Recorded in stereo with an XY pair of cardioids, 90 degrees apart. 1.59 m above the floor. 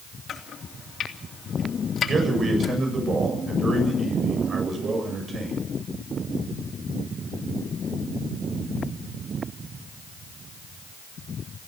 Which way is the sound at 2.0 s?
50° right.